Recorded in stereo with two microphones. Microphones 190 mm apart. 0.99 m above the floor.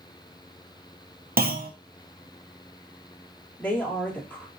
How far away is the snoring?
I don't hear snoring.